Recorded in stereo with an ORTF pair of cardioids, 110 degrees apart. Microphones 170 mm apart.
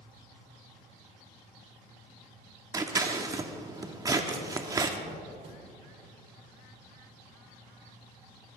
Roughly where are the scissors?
Ahead.